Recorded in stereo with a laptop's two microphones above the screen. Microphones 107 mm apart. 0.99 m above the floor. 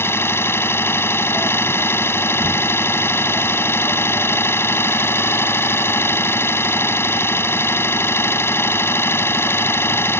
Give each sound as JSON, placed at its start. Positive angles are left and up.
{"t": 0.0, "sound": "an engine running", "side_deg": 25}